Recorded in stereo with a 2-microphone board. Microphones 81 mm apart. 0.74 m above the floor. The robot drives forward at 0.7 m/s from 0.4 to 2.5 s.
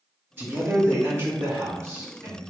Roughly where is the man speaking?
Right.